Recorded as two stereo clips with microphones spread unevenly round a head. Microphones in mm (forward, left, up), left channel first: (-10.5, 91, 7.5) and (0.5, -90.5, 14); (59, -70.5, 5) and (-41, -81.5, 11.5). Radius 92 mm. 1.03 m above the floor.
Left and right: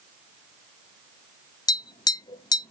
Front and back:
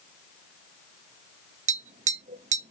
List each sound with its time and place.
1.7 s tapping: 165° left, 0.6 m